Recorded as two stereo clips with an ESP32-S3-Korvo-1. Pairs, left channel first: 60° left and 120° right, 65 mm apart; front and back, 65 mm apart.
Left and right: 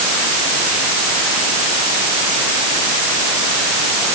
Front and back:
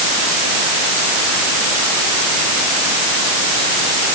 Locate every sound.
Only background noise.